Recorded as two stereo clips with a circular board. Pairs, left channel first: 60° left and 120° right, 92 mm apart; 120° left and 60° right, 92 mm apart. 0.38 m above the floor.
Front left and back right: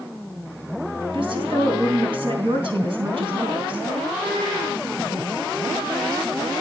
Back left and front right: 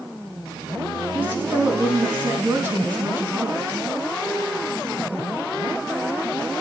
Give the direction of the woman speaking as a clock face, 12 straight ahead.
4 o'clock.